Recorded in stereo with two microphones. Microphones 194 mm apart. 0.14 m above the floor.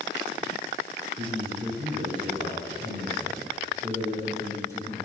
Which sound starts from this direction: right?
A man speaking, at 1.2 s.